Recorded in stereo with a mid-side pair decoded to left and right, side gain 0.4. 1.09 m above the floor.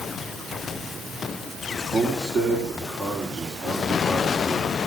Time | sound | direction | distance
1.9 | a man speaking | 45° right | 4 m